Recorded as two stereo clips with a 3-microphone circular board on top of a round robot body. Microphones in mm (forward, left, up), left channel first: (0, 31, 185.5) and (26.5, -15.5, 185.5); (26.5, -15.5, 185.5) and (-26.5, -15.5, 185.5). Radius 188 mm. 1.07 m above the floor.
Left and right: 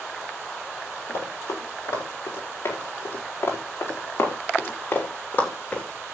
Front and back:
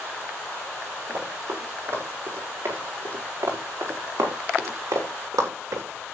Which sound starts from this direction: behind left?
Running footsteps, at 1.1 s.